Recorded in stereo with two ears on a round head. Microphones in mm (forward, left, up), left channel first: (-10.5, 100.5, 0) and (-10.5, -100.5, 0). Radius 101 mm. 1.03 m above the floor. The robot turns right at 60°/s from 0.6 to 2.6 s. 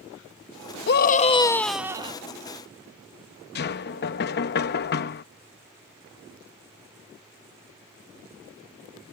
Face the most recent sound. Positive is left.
turn(degrees=50)  # may be behind; listen again after turning